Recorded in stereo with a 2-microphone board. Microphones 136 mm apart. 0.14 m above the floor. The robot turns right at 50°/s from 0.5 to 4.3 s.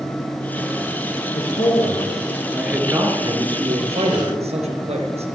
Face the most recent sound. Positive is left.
turn(degrees=-90)